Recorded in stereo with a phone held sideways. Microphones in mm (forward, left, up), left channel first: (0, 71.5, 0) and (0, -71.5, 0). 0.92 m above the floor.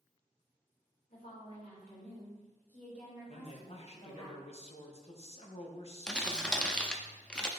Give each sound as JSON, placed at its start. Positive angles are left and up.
{"t": 1.1, "sound": "a woman speaking", "side_deg": 65, "distance_m": 2.5}
{"t": 3.3, "sound": "a man speaking", "side_deg": 45, "distance_m": 0.9}
{"t": 6.1, "sound": "crumpling", "side_deg": 5, "distance_m": 0.6}